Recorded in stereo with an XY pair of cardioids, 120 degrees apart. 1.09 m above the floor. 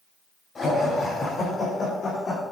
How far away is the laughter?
About 5 m.